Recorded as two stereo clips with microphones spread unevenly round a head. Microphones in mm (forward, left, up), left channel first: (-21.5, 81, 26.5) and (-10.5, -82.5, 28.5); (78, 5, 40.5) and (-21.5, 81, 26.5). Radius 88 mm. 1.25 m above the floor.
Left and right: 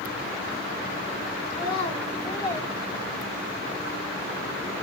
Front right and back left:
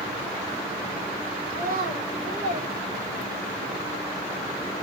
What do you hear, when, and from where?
1.5 s a child speaking: 150° left, 1.9 m; by 3.6 s 155° right, 0.8 m